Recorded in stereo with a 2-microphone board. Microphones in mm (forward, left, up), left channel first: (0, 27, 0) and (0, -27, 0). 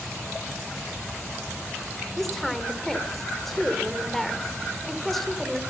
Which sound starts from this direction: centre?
A woman speaking, at 2.2 s.